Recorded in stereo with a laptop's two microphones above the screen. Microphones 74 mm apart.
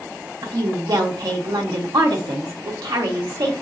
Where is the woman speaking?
65° right (ahead or behind), 0.8 m.